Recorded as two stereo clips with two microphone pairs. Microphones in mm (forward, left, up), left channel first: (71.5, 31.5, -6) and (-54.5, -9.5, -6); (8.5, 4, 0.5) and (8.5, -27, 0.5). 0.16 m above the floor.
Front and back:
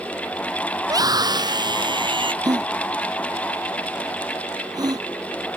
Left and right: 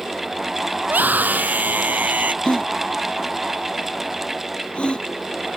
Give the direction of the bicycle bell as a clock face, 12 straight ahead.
I don't hear a bicycle bell.